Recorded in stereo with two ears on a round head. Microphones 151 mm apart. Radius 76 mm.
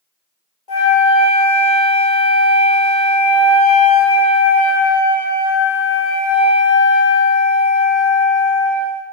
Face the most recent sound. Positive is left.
turn(degrees=30)  # may be behind; listen again after turning